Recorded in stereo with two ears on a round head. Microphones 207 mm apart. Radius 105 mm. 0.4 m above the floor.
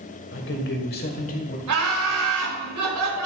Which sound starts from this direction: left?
A man speaking, at 0.3 s.